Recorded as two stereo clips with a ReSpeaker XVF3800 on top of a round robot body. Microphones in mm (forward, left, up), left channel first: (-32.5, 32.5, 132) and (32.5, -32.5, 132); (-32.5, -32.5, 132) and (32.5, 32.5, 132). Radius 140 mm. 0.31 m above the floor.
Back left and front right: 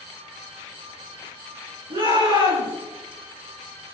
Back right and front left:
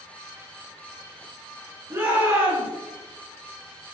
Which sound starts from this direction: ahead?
A shout, at 1.9 s.